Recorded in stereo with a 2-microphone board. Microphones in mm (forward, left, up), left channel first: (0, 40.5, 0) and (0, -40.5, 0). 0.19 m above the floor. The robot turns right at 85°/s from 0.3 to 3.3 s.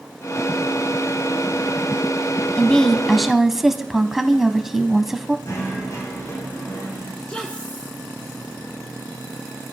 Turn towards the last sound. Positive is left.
turn(degrees=15)  # may be behind; listen again after turning